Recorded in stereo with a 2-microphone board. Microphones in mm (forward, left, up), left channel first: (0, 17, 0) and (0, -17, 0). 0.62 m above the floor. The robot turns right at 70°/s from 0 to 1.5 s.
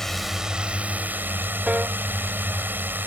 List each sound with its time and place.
0.0 s a drone: 165° left; by 3.1 s 90° right
1.7 s a piano: 45° right (ahead or behind)